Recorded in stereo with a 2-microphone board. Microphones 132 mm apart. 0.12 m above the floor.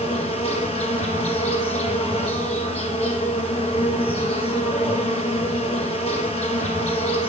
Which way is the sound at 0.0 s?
45° left (ahead or behind).